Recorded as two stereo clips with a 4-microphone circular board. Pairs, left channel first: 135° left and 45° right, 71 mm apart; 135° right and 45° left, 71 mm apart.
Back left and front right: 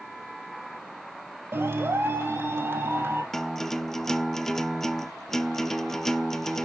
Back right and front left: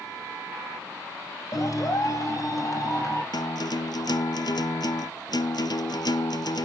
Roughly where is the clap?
Right.